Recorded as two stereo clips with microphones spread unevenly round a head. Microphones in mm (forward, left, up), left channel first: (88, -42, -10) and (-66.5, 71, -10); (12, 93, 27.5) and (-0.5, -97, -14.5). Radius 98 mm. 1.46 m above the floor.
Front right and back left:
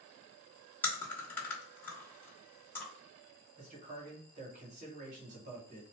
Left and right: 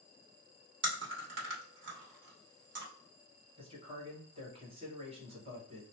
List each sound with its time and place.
0.8 s chewing: 115° right, 1.2 m
3.6 s a man speaking: 155° right, 1.5 m